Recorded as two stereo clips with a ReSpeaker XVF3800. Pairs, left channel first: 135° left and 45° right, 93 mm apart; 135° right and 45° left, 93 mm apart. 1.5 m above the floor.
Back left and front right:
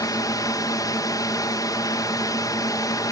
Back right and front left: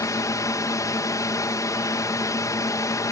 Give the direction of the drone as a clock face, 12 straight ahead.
6 o'clock.